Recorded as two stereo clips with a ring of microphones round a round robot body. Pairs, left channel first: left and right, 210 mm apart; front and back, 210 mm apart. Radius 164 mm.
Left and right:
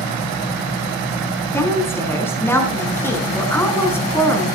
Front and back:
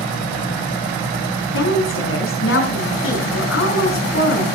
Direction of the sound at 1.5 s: 10° left.